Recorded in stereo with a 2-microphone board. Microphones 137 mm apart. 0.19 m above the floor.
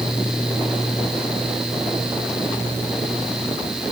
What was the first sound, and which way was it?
Only background noise.